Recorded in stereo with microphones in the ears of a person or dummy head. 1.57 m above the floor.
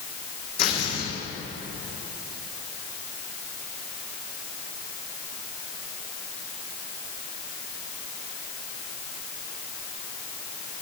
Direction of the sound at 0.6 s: 60° left (ahead or behind).